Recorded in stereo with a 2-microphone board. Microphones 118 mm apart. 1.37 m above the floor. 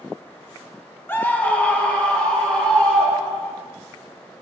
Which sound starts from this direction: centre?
A scream, at 1.1 s.